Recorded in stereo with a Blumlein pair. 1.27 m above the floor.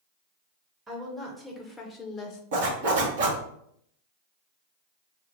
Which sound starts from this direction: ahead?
A woman speaking, at 0.9 s.